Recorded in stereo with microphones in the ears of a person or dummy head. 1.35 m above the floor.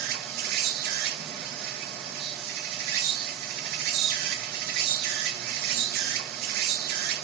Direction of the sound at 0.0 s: 55° right (ahead or behind).